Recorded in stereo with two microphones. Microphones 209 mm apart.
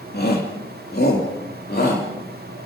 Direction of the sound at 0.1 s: 50° left (ahead or behind).